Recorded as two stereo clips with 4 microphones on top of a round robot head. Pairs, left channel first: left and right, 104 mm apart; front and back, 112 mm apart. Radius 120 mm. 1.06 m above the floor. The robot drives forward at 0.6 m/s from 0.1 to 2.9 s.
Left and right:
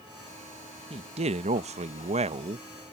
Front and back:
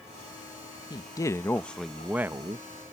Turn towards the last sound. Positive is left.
turn(degrees=-125)